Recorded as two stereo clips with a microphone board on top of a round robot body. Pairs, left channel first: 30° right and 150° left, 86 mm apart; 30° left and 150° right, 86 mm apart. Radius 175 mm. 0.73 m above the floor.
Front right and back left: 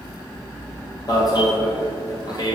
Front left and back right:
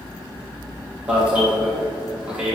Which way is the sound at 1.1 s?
75° right.